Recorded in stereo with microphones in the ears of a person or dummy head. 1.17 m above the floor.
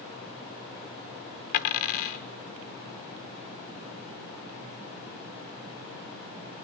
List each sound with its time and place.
1.5 s a dropped coin: 50° left (ahead or behind), 1.0 m